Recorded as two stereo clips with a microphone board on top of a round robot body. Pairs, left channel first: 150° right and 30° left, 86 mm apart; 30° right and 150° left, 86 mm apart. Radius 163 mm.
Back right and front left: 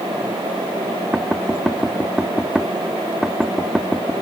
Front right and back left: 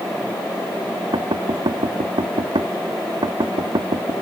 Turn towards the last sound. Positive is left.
turn(degrees=115)